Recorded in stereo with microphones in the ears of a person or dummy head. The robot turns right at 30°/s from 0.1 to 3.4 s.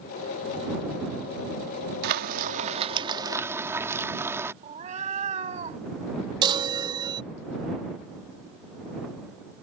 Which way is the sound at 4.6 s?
30° right (ahead or behind).